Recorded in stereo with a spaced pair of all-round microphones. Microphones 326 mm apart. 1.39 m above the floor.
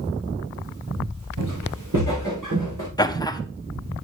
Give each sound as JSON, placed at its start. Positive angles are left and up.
{"t": 1.4, "sound": "footsteps", "side_deg": -75, "distance_m": 6.0}
{"t": 3.0, "sound": "laughter", "side_deg": 15, "distance_m": 0.9}